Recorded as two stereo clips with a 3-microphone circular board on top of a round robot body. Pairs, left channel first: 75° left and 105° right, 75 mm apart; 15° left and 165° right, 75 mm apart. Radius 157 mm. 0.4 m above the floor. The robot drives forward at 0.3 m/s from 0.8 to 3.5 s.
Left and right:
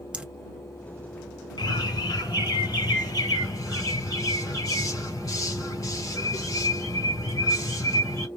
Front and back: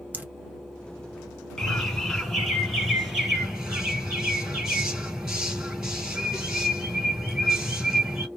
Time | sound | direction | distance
0.1 | dripping | 160° right | 1.2 m
1.6 | a bird | 100° left | 2 m